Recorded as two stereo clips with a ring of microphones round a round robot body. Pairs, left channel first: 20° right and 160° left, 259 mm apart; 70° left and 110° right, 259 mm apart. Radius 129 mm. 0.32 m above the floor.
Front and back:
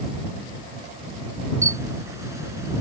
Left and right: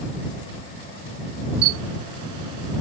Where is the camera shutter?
125° right.